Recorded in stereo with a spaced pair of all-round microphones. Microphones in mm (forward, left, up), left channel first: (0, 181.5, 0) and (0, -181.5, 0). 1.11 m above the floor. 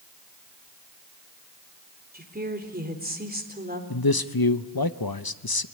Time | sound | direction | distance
2.1 | a woman speaking | 25° right (ahead or behind) | 4 m
3.9 | a man speaking | 75° left (ahead or behind) | 0.9 m